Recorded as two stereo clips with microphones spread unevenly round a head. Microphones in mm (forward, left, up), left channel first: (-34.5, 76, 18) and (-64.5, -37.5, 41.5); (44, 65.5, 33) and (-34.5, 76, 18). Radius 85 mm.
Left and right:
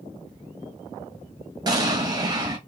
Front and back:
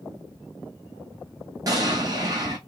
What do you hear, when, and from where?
1.7 s an explosion: 160° right, 1.7 m